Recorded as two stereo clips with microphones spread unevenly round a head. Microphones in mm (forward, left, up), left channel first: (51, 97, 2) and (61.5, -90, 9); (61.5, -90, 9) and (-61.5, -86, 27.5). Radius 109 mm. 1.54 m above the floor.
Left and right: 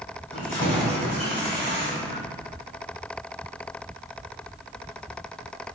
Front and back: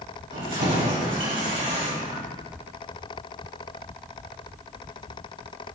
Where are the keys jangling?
150° left, 3.5 m.